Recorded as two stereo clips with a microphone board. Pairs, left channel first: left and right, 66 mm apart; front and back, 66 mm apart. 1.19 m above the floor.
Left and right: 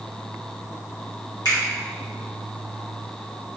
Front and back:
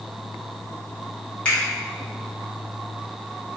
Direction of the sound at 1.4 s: 70° left.